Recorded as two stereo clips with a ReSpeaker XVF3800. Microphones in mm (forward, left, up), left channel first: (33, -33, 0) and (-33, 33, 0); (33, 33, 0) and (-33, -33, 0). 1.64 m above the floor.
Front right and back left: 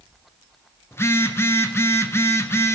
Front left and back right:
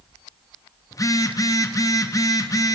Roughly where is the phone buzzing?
Ahead.